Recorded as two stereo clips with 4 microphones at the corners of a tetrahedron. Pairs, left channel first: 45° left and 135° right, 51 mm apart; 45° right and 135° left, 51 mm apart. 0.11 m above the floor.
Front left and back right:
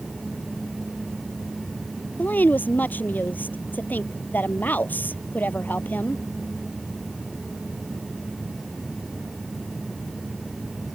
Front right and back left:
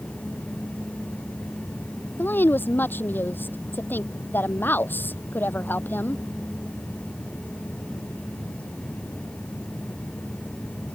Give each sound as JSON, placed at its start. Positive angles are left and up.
{"t": 2.2, "sound": "a woman speaking", "azimuth_deg": 0}